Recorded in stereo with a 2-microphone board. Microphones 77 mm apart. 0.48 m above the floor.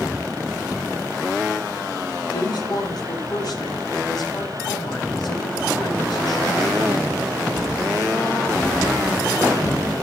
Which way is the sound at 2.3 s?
65° left (ahead or behind).